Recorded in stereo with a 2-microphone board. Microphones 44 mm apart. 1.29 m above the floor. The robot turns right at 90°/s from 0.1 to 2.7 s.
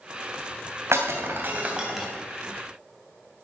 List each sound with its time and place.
0.9 s breaking glass: 70° right (ahead or behind), 2.5 m; by 2.1 s centre (ahead or behind), 2.5 m